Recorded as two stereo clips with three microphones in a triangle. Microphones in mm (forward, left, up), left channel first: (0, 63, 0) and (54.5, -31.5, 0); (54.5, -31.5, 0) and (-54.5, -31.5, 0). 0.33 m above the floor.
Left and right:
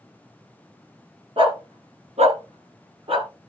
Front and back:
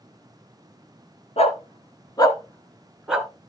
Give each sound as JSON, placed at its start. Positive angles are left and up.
{"t": 1.4, "sound": "a dog barking", "azimuth_deg": -20, "distance_m": 1.4}